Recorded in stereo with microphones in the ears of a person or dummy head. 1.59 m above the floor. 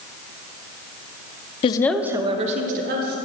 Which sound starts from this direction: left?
A woman speaking, at 1.6 s.